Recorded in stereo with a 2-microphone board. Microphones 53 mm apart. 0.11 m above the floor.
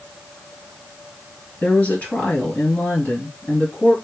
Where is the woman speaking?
30° left (ahead or behind), 1.8 m.